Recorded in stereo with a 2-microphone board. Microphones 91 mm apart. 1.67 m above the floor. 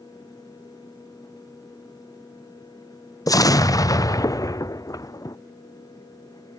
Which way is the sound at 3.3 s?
40° left (ahead or behind).